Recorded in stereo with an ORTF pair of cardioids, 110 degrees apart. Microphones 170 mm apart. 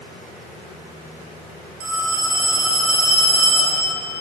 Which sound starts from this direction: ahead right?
A phone ringing, at 1.8 s.